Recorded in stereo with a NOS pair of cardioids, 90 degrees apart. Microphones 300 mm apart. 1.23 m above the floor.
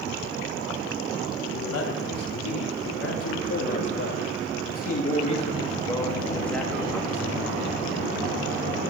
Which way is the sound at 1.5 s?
65° left.